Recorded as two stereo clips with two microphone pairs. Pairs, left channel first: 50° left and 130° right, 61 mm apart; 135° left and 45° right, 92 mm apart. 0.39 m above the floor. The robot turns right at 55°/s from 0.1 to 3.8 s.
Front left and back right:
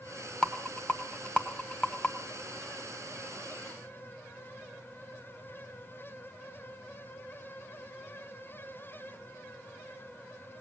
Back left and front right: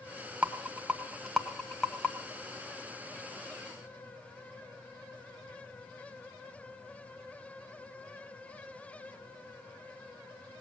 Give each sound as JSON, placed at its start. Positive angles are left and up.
{"t": 0.4, "sound": "a rattle", "azimuth_deg": -5, "distance_m": 1.1}